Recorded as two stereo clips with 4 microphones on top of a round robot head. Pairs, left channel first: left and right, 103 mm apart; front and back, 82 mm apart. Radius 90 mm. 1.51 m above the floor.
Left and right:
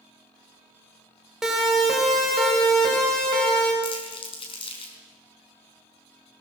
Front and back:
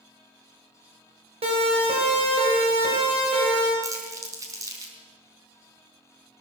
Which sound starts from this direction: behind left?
Crumpling, at 3.8 s.